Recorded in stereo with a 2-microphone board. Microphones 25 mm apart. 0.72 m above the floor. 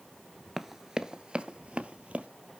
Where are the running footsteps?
10° right (ahead or behind), 0.7 m; by 2.3 s 55° right (ahead or behind), 1.2 m.